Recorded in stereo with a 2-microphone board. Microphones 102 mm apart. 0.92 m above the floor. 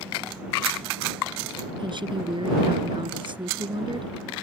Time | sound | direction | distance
1.8 | a woman speaking | 50° right (ahead or behind) | ?